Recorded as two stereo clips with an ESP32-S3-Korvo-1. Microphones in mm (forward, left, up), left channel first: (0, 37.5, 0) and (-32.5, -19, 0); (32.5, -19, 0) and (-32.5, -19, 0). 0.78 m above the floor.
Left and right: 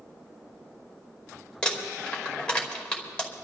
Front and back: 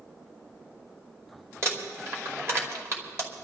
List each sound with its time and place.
1.6 s crumpling: 135° left, 2.5 m